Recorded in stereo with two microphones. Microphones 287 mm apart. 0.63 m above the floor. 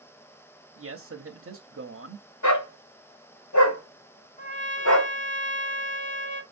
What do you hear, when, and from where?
0.8 s a man speaking: 50° right (ahead or behind), 0.8 m
2.4 s a dog barking: 90° left, 1.5 m
4.4 s a trumpet: 25° left (ahead or behind), 1.0 m